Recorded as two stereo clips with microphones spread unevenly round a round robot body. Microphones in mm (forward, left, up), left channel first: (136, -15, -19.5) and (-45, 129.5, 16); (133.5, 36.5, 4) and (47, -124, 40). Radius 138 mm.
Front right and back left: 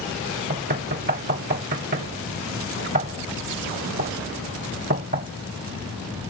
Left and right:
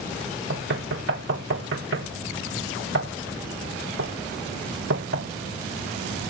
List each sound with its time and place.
0.5 s knocking: 160° right